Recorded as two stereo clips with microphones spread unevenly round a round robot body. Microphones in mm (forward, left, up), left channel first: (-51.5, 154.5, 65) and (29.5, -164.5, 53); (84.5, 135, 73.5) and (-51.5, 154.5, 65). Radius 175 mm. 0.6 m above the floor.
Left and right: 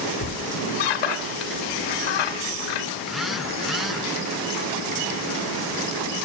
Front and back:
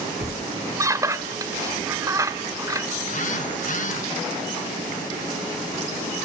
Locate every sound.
0.2 s a squeak: 105° left, 2 m
3.0 s a phone buzzing: 15° left, 1.8 m